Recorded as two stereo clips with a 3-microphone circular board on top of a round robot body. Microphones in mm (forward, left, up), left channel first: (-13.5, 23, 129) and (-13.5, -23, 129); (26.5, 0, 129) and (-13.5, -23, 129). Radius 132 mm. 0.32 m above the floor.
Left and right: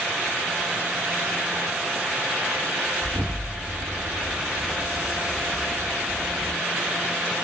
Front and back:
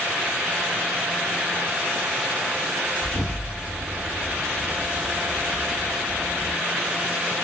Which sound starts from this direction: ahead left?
An explosion, at 3.0 s.